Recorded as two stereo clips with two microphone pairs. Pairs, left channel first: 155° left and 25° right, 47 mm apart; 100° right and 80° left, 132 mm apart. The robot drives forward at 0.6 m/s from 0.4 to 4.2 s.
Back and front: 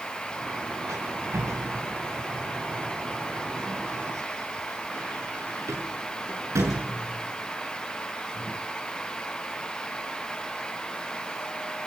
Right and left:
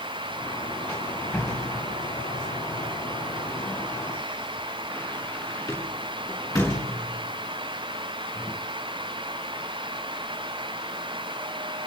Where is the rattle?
30° right, 9 m; by 8.6 s 35° right, 7 m.